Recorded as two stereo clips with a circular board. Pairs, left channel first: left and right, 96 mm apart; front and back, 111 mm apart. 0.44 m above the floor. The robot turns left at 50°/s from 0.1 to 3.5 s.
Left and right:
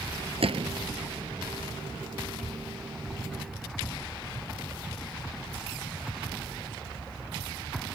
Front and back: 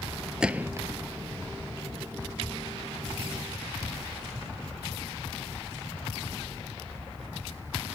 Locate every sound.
0.4 s a gunshot: 95° right; by 0.9 s 120° right